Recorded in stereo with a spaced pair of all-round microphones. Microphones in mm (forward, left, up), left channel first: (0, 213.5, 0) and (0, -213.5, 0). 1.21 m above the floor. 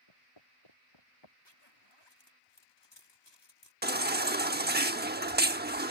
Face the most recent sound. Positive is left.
turn(degrees=-25)  # may be behind; listen again after turning